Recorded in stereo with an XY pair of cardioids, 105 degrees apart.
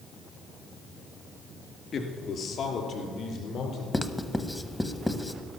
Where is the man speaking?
50° left, 2.5 m; by 3.8 s 60° left, 4.5 m.